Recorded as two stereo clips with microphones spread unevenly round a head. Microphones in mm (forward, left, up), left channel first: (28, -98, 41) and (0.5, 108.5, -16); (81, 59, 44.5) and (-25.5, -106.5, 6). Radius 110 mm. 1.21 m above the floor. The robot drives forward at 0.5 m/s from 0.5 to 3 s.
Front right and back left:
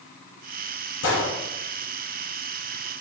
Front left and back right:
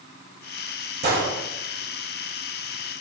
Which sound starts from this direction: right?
A gunshot, at 1.0 s.